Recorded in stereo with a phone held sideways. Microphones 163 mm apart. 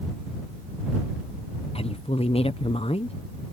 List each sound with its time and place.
1.8 s a woman speaking: 35° left (ahead or behind)